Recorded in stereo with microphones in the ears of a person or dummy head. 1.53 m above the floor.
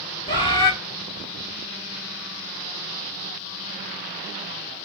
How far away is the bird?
About 1.4 m.